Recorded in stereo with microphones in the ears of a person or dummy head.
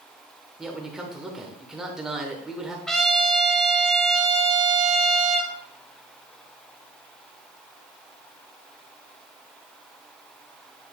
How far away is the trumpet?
About 0.8 m.